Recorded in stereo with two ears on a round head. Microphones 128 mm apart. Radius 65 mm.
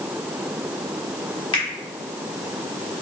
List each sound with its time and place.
1.5 s a finger snap: 40° left (ahead or behind), 1.7 m